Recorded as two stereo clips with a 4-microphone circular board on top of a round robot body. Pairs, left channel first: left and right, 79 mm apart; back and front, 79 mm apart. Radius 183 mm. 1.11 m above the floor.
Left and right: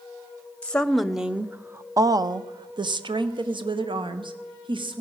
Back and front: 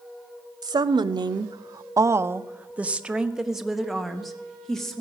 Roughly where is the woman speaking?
Ahead.